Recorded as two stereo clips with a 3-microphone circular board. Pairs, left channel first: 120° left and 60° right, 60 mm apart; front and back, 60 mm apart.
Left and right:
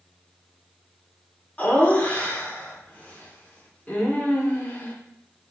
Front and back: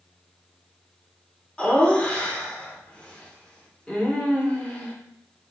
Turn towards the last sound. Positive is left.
turn(degrees=70)